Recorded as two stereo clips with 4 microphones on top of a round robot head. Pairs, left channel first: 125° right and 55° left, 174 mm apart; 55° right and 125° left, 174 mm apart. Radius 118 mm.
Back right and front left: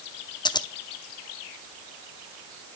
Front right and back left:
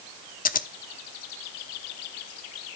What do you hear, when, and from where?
0.5 s scissors: 65° right, 0.9 m